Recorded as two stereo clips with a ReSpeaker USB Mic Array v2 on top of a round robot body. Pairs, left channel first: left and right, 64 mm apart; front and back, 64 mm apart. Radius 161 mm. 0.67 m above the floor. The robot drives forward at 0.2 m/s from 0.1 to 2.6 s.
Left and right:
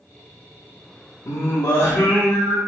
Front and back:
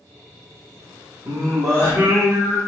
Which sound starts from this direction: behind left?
Singing, at 1.2 s.